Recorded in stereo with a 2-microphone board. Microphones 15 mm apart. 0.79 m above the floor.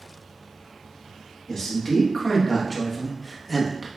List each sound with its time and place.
1.5 s a man speaking: 40° left (ahead or behind), 1.6 m; by 3.9 s 10° right (ahead or behind), 0.8 m